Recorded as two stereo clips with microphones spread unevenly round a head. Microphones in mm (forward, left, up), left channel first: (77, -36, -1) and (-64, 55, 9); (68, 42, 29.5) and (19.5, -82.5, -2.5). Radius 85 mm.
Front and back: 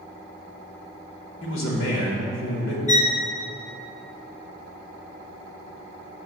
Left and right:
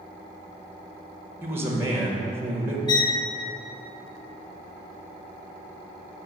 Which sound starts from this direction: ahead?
A violin, at 2.9 s.